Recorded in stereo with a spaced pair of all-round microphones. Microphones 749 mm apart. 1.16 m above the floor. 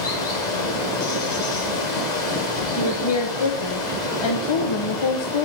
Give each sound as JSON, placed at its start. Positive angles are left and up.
{"t": 0.0, "sound": "running water", "side_deg": 65, "distance_m": 1.7}
{"t": 2.8, "sound": "a woman speaking", "side_deg": 40, "distance_m": 0.7}